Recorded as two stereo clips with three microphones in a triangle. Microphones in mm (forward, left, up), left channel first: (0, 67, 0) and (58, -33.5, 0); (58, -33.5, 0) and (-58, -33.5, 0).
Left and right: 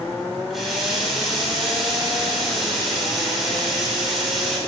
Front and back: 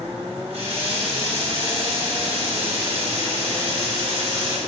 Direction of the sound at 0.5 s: 150° right.